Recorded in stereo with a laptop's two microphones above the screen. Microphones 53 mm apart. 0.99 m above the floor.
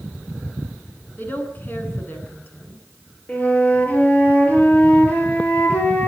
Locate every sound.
1.2 s a woman speaking: 40° left (ahead or behind), 9 m
3.3 s a flute: 30° left (ahead or behind), 8.5 m